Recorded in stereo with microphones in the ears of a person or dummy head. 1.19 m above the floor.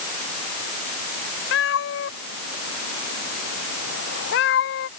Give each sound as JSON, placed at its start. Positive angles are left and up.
{"t": 1.5, "sound": "a cat meowing", "side_deg": 80}